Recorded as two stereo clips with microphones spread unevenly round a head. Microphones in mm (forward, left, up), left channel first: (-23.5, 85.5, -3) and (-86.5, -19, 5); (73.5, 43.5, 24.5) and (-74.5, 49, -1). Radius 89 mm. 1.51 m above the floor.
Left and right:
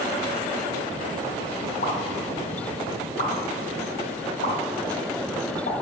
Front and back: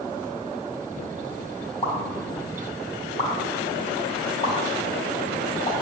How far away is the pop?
About 4 m.